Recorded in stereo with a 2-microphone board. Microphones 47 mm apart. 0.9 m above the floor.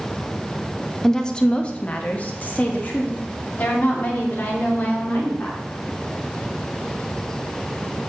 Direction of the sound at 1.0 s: 10° left (ahead or behind).